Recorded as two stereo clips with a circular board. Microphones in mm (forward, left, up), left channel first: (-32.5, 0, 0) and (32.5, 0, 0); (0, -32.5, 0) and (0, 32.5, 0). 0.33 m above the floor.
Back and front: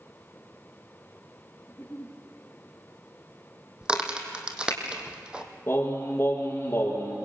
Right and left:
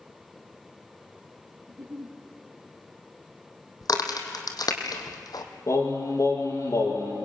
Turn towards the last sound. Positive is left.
turn(degrees=-125)